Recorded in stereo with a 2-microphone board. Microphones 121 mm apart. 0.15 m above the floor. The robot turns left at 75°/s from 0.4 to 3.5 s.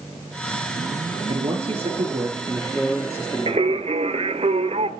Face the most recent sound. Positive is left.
turn(degrees=-60)  # may be behind; listen again after turning